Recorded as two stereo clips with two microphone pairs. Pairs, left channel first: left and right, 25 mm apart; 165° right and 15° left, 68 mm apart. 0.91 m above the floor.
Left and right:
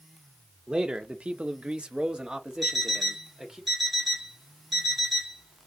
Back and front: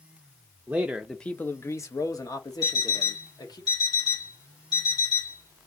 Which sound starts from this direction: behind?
An alarm clock, at 2.6 s.